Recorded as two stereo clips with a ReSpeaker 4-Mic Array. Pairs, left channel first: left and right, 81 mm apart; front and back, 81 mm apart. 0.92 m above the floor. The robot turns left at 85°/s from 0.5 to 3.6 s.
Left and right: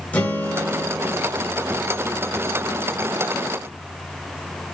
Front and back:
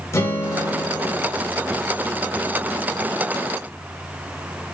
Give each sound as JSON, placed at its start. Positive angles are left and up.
{"t": 0.1, "sound": "a guitar", "azimuth_deg": 30, "distance_m": 0.7}